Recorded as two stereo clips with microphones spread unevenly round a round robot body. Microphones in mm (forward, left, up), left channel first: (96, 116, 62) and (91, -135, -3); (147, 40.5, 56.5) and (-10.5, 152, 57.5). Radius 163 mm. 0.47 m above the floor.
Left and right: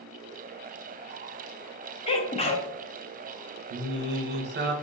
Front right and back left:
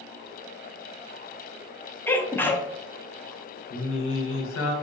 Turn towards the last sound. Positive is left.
turn(degrees=-50)